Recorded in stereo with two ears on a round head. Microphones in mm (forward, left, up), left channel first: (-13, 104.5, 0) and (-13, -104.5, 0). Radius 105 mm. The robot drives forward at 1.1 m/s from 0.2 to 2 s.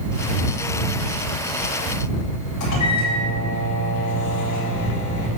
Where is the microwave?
75° left (ahead or behind), 2.5 m.